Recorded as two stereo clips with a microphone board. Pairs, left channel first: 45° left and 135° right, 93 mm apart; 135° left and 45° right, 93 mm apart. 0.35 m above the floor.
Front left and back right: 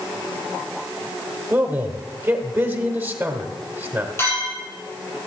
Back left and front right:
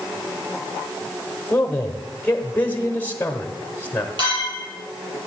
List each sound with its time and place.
1.5 s a man speaking: 175° right, 1.1 m
4.2 s a clink: 15° right, 6 m